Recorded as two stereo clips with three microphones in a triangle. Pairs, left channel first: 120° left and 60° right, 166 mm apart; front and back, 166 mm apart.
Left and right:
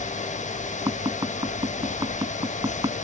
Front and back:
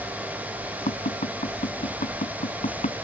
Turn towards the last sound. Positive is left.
turn(degrees=0)